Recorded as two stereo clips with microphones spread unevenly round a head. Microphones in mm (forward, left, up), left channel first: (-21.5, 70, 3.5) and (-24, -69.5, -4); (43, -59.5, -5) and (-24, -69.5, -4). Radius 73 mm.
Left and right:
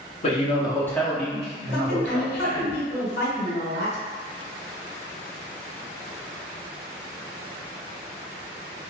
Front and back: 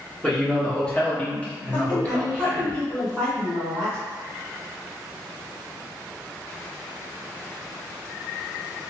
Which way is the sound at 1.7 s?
90° left.